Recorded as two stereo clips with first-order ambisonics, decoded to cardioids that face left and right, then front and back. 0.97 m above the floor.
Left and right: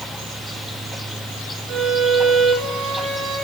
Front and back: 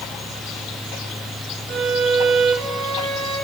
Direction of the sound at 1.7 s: 140° right.